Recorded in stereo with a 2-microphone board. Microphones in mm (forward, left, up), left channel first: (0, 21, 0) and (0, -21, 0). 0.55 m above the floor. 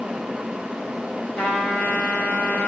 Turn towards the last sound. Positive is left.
turn(degrees=35)  # may be behind; listen again after turning